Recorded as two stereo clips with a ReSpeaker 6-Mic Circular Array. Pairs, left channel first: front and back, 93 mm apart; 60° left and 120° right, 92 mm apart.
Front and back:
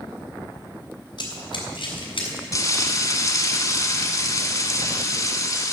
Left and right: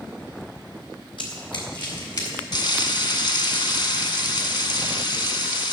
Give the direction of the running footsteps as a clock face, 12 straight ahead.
11 o'clock.